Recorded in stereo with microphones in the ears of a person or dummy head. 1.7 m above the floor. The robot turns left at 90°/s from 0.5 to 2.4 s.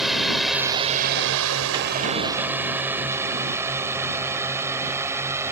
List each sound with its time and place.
0.0 s a drone: centre (ahead or behind); by 5.5 s 10° right (ahead or behind)